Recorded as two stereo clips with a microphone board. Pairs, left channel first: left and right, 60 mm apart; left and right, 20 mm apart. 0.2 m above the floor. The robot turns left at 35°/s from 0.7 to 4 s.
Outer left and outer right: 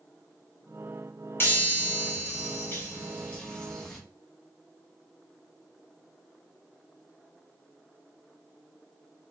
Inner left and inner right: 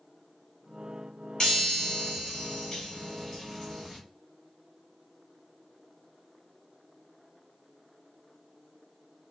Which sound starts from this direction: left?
A chime, at 1.4 s.